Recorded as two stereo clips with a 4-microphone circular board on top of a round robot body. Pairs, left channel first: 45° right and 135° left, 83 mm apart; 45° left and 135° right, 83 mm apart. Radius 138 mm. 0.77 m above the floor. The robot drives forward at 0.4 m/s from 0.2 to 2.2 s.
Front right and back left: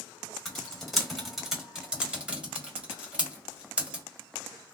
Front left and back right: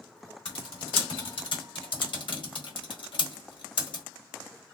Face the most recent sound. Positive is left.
turn(degrees=60)